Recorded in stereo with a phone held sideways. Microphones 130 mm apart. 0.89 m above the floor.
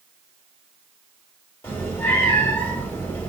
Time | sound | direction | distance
1.6 | a cat meowing | 20° left (ahead or behind) | 1.5 m